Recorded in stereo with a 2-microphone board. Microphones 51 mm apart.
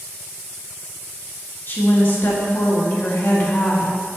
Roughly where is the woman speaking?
Left.